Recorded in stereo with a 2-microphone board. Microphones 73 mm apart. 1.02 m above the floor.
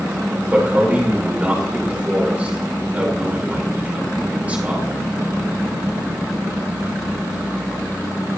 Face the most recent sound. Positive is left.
turn(degrees=-20)  # may be behind; listen again after turning